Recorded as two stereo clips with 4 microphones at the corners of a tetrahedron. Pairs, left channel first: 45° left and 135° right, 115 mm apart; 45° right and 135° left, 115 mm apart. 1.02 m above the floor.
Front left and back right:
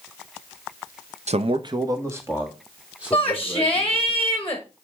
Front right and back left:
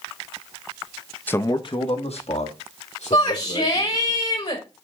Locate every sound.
1.3 s a man speaking: 120° right, 0.6 m; by 4.1 s 50° right, 3.5 m
3.1 s a shout: 30° right, 1.3 m